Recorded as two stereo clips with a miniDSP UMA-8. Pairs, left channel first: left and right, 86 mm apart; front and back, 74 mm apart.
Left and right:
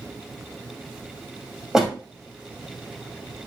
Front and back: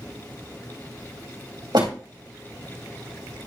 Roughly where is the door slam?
Behind.